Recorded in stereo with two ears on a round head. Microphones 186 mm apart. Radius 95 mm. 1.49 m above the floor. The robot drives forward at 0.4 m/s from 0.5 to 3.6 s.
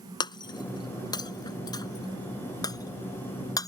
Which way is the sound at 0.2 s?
20° left (ahead or behind).